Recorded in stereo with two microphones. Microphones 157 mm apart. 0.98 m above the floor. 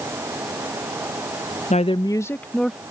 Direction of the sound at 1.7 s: 50° left (ahead or behind).